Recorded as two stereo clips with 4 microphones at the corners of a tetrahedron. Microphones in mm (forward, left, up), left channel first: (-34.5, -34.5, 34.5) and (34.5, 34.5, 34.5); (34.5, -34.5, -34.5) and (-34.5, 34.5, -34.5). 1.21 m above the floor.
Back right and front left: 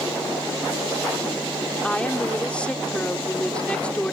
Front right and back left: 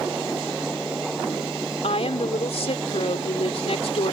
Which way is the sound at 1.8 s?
55° right.